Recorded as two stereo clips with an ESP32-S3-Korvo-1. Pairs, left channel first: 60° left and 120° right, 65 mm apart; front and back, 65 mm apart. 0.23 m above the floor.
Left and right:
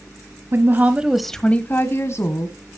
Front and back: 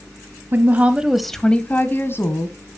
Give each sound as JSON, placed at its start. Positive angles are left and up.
{"t": 0.5, "sound": "a woman speaking", "azimuth_deg": -140, "distance_m": 1.2}